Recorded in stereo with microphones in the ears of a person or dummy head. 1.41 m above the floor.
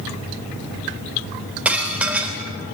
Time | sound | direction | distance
1.6 | dishes clattering | 5° right (ahead or behind) | 3.5 m